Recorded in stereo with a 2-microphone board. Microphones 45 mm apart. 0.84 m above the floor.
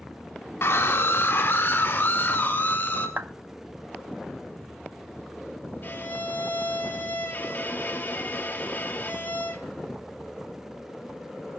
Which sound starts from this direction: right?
A clap, at 3.2 s.